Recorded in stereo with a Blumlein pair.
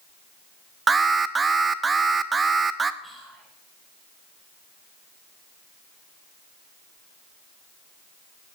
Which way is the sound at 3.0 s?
5° right.